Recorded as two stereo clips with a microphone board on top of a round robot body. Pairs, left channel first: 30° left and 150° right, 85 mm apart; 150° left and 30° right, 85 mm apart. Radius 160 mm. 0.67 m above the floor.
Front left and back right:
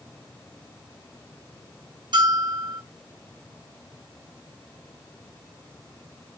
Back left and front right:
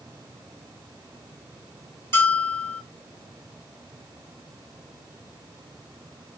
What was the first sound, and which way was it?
A bell, 155° right.